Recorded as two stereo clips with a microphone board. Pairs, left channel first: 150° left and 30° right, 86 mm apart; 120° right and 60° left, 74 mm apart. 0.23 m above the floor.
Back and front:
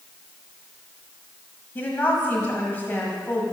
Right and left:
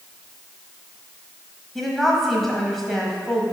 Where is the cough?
I don't hear a cough.